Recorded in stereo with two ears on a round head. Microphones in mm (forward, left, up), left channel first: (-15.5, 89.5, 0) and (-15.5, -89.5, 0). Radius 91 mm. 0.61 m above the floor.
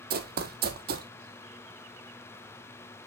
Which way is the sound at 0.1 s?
50° right (ahead or behind).